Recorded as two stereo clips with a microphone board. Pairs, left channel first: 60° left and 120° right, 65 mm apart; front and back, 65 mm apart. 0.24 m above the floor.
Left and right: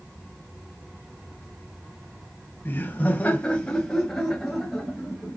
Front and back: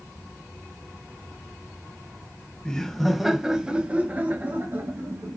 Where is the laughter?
65° left, 1.2 m; by 5.4 s 160° left, 1.7 m.